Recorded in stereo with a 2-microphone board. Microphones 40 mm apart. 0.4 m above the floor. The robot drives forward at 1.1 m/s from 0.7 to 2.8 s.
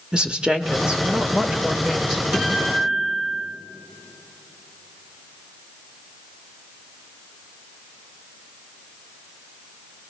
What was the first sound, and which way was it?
A woman speaking, 20° right (ahead or behind).